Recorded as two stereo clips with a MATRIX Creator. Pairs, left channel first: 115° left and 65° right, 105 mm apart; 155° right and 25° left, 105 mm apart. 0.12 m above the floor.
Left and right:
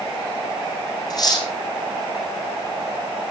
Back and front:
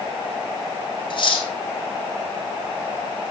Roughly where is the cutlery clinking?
Behind.